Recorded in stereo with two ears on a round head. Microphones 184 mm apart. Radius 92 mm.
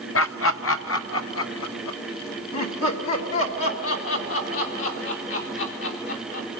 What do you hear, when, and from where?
0.1 s laughter: 65° left (ahead or behind), 0.9 m; by 6.5 s 70° left (ahead or behind), 5.5 m